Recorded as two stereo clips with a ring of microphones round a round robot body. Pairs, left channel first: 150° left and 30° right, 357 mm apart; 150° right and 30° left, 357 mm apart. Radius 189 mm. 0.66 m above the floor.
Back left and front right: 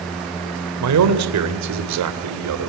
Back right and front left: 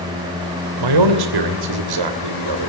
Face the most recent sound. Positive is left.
turn(degrees=15)